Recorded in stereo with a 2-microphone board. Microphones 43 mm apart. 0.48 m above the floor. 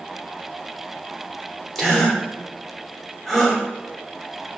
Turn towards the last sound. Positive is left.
turn(degrees=5)  # may be behind; listen again after turning